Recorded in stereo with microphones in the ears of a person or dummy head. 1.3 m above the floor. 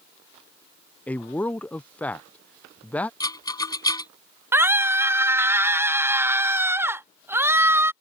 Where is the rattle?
25° left (ahead or behind).